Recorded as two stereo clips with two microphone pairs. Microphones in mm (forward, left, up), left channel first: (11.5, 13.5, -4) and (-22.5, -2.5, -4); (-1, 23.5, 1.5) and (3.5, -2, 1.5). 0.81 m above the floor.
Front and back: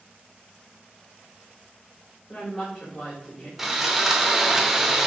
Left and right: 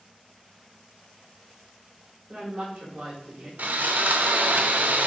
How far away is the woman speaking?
About 3.5 m.